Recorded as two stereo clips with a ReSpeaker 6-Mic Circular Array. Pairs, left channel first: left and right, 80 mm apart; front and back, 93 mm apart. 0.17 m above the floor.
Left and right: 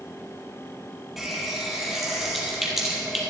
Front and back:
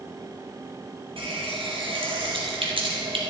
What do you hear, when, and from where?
1.2 s a running tap: 175° right, 3.5 m